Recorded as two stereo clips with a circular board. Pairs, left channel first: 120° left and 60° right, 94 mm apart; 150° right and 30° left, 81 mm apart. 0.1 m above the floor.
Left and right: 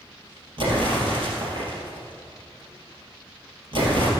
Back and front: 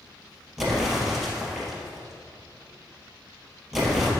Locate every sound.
0.6 s an explosion: 55° right, 2.5 m